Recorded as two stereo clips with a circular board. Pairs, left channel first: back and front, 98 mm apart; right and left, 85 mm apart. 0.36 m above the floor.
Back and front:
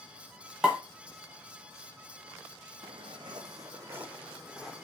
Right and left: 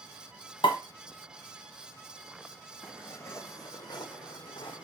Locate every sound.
0.6 s a pop: 85° right, 1.0 m
2.8 s footsteps: 25° right, 1.0 m; by 4.8 s 95° right, 0.9 m